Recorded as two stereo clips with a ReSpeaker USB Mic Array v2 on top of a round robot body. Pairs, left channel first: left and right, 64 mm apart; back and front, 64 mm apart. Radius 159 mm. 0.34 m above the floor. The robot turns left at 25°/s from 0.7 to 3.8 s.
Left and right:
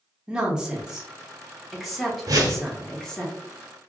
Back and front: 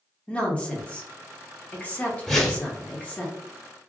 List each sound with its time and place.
0.3 s a woman speaking: 150° right, 1.1 m; by 3.3 s 150° left, 1.1 m
2.3 s a whoosh: 95° right, 0.9 m; by 2.7 s 105° right, 0.9 m